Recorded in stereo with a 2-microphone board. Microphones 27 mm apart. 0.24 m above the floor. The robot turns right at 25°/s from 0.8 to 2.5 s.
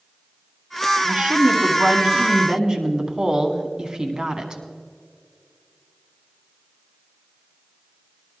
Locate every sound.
1.0 s a woman speaking: 75° right, 1.9 m; by 4.6 s 35° right, 1.9 m